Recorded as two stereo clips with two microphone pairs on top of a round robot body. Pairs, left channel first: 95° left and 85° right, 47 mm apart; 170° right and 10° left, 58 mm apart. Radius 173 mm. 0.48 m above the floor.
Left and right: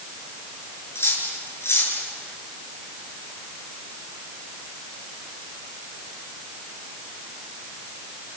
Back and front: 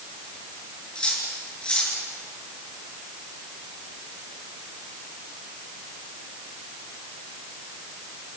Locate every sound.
0.9 s cutlery clinking: 115° left, 6.5 m